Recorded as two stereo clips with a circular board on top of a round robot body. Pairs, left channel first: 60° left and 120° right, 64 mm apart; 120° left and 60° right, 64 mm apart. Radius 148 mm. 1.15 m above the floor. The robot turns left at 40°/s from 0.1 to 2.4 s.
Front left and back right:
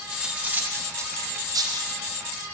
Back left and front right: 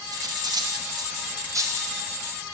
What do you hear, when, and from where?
0.1 s cutlery clinking: 40° right, 0.7 m; by 1.9 s 110° right, 0.7 m